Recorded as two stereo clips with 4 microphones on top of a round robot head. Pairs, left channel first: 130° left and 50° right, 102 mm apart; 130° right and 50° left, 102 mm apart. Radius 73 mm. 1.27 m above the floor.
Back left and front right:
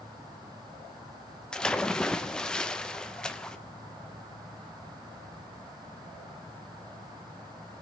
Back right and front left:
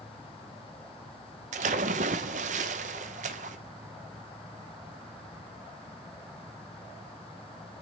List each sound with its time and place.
1.5 s a splash: 45° left, 0.7 m